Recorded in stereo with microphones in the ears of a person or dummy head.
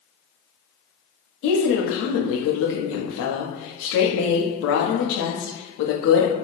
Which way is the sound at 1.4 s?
80° left.